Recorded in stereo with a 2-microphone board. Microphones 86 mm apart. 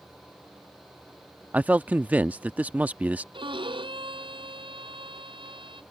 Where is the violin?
70° right (ahead or behind).